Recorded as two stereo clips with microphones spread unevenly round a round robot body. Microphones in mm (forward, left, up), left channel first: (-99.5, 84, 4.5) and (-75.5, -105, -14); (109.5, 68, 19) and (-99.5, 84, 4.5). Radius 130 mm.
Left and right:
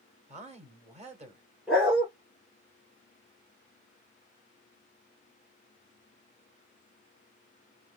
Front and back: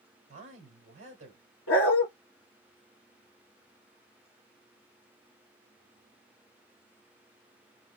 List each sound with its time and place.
0.3 s a woman speaking: 130° right, 1.7 m
1.7 s a dog barking: 10° left, 2.5 m